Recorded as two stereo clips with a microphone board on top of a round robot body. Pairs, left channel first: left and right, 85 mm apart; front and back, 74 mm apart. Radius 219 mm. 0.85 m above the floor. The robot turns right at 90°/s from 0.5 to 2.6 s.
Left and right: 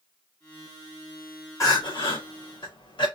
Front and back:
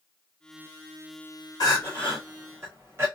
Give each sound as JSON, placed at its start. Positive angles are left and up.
{"t": 1.6, "sound": "crying", "azimuth_deg": 35, "distance_m": 2.0}